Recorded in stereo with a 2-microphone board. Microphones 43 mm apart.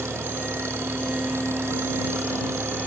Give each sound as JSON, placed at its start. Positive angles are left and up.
{"t": 0.0, "sound": "an engine running", "side_deg": -80}